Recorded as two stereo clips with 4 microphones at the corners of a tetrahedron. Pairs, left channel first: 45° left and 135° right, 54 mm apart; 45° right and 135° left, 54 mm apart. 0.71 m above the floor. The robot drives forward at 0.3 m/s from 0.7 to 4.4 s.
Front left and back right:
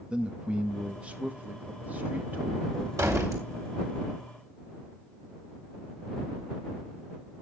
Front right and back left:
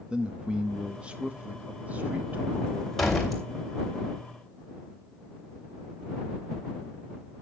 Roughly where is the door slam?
Behind right.